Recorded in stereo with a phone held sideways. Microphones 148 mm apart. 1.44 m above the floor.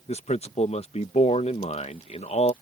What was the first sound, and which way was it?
A man speaking, 45° left (ahead or behind).